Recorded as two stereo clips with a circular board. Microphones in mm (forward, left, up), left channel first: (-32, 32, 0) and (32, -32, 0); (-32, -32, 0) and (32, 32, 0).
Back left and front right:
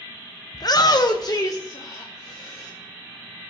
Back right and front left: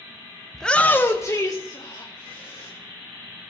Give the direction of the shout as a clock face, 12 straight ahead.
7 o'clock.